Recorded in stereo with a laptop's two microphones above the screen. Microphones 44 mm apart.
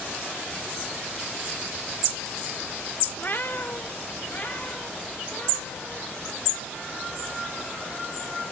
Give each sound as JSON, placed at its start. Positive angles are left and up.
{"t": 3.2, "sound": "a cat meowing", "side_deg": 40, "distance_m": 0.5}